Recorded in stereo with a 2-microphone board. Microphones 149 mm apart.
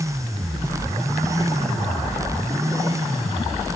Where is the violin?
I don't hear a violin.